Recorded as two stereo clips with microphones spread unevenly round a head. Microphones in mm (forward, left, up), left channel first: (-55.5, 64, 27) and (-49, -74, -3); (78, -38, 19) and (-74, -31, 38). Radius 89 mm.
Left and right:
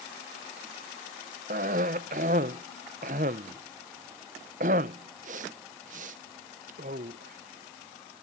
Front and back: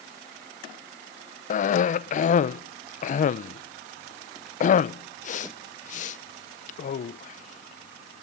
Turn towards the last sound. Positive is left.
turn(degrees=-45)